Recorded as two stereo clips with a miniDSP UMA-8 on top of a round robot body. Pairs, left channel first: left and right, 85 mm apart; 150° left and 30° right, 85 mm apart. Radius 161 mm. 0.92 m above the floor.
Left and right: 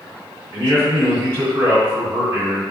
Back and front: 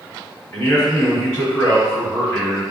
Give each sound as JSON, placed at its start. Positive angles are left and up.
{"t": 0.5, "sound": "a man speaking", "azimuth_deg": -130, "distance_m": 1.8}